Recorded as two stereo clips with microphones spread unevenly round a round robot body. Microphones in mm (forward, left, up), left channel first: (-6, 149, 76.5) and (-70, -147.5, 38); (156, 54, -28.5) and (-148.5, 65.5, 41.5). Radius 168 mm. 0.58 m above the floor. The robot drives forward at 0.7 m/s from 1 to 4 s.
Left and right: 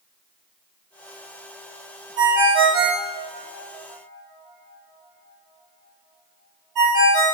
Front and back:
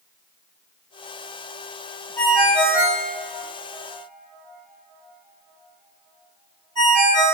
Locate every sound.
2.2 s a ringtone: 85° right, 2.5 m; by 7.3 s 110° right, 3 m